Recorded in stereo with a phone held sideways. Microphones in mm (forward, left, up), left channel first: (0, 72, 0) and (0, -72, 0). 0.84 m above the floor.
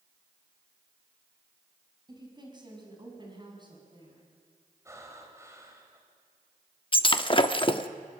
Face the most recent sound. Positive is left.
turn(degrees=35)  # may be behind; listen again after turning